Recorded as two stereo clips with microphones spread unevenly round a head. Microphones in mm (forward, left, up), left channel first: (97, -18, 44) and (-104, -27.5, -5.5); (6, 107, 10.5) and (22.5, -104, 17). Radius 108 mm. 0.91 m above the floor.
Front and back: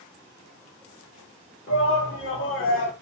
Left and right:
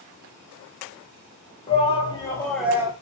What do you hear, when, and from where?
1.7 s a shout: 40° left, 1.1 m; by 2.9 s 15° right, 0.7 m